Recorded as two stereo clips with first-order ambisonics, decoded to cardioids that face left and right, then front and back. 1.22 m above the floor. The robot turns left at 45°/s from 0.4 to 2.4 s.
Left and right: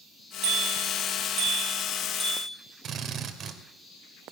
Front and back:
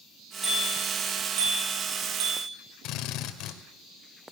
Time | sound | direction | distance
0.4 | a bicycle bell | 100° right | 9 m
2.8 | a drill | 35° right | 2.5 m